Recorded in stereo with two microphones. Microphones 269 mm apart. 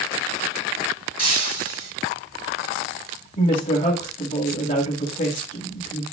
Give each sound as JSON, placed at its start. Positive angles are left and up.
{"t": 1.2, "sound": "breaking glass", "side_deg": 75, "distance_m": 4.5}
{"t": 3.4, "sound": "a woman speaking", "side_deg": 40, "distance_m": 3.0}